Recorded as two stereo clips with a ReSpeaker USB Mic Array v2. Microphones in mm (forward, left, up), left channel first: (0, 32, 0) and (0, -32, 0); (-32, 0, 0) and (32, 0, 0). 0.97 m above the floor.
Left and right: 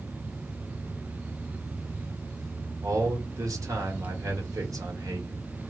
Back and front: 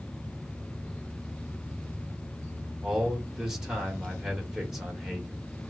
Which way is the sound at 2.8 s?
80° right.